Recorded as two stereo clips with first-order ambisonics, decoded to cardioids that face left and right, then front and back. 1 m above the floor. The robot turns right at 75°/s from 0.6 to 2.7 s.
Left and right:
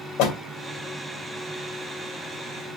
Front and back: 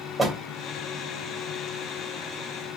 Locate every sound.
0.2 s a door slam: 105° left, 2.5 m